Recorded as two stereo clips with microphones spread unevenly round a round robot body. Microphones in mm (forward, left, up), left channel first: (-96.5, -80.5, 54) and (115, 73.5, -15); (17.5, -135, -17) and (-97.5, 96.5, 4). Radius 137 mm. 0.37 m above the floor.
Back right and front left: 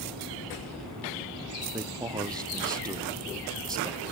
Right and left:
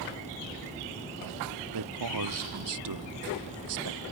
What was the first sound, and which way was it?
A man speaking, 115° left.